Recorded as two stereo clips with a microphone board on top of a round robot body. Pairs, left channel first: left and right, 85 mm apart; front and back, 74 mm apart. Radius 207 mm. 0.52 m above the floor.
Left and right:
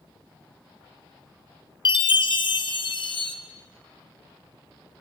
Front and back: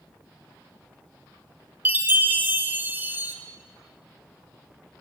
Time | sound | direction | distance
1.9 | a chime | 115° left | 1.0 m